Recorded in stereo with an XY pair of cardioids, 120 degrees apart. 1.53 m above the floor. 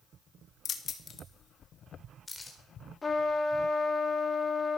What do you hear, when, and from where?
0.7 s keys jangling: 55° left, 1.9 m; by 2.6 s 15° left, 4 m
3.0 s a trumpet: 25° left, 2.5 m